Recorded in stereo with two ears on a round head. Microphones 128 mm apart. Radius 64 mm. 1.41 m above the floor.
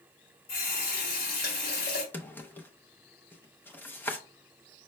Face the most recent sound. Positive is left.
turn(degrees=15)  # may be behind; listen again after turning